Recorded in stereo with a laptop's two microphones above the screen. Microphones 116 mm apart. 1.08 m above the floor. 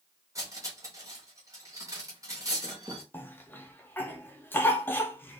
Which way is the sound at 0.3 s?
30° right (ahead or behind).